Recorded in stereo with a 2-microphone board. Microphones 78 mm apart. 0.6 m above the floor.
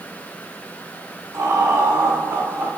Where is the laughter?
50° right (ahead or behind), 2 m; by 2.7 s 45° right (ahead or behind), 2.5 m.